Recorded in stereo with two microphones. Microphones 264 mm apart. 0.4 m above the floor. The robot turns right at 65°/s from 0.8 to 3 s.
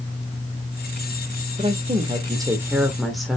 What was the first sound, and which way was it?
A woman speaking, 20° right (ahead or behind).